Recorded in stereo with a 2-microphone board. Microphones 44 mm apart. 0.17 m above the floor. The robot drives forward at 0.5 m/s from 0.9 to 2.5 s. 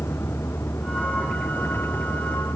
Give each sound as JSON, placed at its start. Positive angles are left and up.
{"t": 0.0, "sound": "a vehicle", "side_deg": 75}